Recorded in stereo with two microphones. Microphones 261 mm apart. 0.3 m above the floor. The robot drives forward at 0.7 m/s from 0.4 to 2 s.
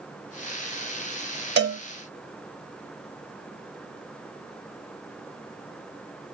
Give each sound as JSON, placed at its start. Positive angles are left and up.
{"t": 1.6, "sound": "a cowbell", "side_deg": -45, "distance_m": 0.6}